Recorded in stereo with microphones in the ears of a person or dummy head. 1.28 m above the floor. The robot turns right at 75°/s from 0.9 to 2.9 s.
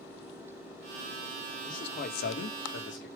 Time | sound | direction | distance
1.7 | a man speaking | 20° left | 1.7 m